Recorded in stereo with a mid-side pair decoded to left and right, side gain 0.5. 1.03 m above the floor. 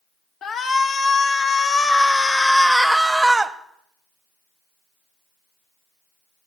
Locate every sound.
0.4 s a shout: 50° left, 2 m; by 3.5 s 25° right, 1.3 m